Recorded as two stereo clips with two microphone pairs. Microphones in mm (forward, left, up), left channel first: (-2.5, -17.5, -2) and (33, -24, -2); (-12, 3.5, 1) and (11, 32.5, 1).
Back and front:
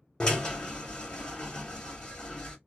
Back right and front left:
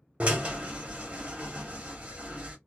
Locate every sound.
0.2 s a drill: 100° left, 1.2 m